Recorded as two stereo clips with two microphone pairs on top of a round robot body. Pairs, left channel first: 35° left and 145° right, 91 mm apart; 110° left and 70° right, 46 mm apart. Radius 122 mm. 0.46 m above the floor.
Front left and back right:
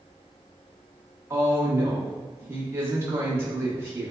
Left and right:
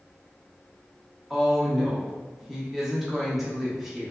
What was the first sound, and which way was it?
A woman speaking, 155° right.